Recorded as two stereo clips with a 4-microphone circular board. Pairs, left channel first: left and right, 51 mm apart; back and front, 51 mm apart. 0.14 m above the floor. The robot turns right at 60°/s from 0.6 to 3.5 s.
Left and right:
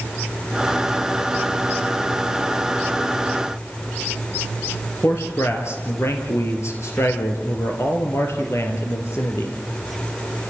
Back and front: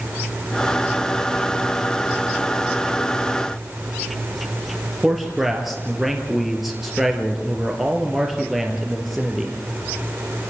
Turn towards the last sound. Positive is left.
turn(degrees=85)